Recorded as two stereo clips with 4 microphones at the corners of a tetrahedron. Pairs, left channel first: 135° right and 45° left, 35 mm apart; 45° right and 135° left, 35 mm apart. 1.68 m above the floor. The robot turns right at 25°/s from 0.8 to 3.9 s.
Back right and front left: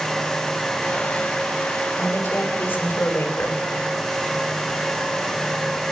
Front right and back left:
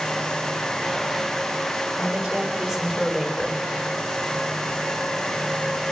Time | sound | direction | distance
2.0 | a woman speaking | 160° right | 4 m